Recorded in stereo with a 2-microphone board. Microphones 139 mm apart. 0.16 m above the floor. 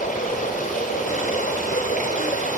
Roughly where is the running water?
Left.